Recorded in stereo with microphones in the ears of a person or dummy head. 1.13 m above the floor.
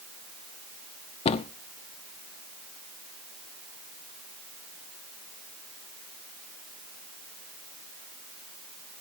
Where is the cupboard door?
30° left (ahead or behind), 0.8 m.